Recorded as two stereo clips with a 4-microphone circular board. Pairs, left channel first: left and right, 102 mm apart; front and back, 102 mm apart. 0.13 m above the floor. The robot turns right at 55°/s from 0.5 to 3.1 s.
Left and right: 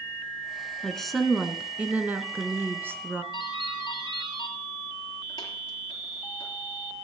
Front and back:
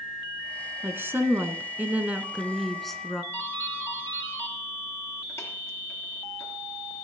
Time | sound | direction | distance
0.8 | a woman speaking | 165° left | 1.1 m
3.3 | a doorbell | 55° left | 3 m